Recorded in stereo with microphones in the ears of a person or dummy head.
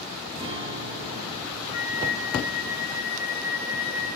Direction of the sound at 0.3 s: 25° right (ahead or behind).